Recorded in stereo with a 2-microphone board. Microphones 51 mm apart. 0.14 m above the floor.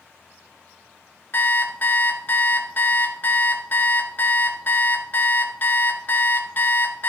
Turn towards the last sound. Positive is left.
turn(degrees=40)  # may be behind; listen again after turning